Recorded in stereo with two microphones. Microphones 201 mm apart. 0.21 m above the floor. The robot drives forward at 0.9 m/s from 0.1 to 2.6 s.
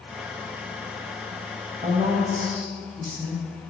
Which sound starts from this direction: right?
A woman speaking, at 1.8 s.